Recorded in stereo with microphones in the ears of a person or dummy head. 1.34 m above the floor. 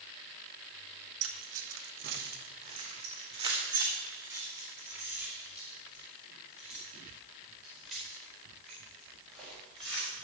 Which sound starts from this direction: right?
Keys jangling, at 1.2 s.